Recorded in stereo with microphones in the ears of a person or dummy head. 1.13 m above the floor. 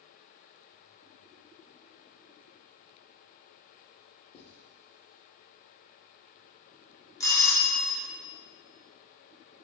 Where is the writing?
30° left (ahead or behind), 0.8 m.